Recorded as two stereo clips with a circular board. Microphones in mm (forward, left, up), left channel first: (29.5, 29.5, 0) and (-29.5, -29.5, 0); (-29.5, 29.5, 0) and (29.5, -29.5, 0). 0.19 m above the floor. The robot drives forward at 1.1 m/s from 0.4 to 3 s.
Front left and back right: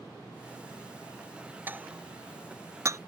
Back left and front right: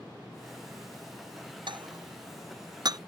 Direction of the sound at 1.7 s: 65° right.